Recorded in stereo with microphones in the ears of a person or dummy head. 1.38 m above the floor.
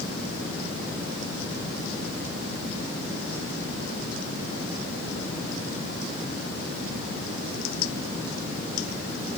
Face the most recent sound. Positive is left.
No sound to turn to.